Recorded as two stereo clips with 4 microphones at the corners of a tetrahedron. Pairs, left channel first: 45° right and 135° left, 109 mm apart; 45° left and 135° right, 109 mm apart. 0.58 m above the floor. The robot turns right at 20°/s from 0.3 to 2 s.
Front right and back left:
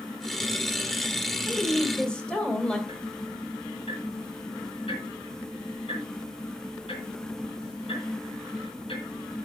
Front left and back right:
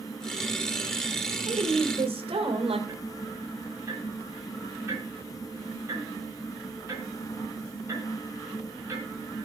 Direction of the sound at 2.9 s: 70° right.